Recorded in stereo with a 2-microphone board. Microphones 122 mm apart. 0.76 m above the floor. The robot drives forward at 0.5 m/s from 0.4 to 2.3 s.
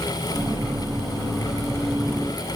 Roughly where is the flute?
No flute in this recording.